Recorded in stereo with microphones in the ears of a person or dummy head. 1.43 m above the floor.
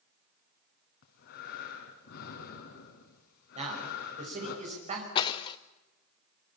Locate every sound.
1.0 s breathing: 65° left (ahead or behind), 4 m
3.5 s a man speaking: 35° right (ahead or behind), 6 m
5.2 s breaking glass: 30° left (ahead or behind), 0.7 m